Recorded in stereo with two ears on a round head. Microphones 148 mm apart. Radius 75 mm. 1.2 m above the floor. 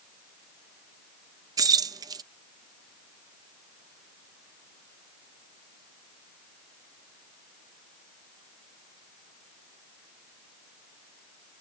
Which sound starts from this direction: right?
Keys jangling, at 1.6 s.